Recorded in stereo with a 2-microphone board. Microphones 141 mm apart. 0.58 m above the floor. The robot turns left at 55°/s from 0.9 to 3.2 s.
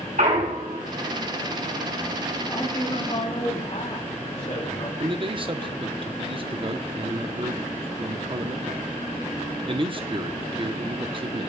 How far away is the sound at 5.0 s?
About 0.7 m.